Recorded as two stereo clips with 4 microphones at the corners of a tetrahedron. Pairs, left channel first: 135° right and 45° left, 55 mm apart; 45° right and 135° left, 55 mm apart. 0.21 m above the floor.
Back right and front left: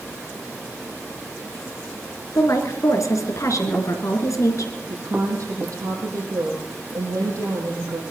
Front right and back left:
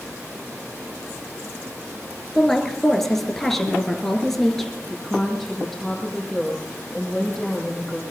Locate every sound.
2.4 s a woman speaking: 130° right, 3 m
4.9 s a woman speaking: 40° left, 7.5 m